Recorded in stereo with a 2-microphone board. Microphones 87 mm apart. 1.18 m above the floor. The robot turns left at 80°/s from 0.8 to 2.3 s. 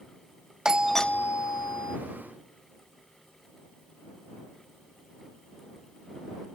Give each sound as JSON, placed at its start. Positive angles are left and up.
{"t": 0.7, "sound": "a doorbell", "azimuth_deg": -170}